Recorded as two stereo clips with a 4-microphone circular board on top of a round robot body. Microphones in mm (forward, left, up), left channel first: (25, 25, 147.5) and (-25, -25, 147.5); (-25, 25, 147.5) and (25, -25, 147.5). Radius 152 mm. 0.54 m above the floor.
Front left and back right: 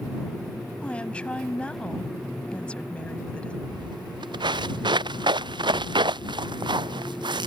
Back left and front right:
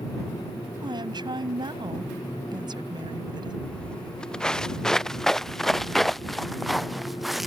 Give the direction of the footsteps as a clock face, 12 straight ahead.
5 o'clock.